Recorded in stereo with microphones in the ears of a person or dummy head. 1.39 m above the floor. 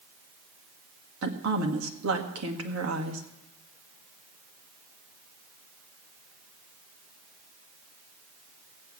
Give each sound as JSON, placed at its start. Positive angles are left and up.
{"t": 1.2, "sound": "a woman speaking", "side_deg": -75, "distance_m": 2.0}